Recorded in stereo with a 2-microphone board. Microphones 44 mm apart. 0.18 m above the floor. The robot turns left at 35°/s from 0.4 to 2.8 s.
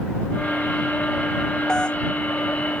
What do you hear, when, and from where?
1.7 s a doorbell: 15° left (ahead or behind); by 2.0 s 25° left (ahead or behind)